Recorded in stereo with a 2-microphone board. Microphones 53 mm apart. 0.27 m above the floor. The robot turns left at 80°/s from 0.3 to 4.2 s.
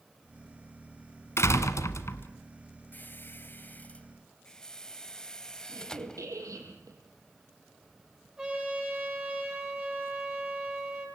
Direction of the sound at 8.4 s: 15° right (ahead or behind).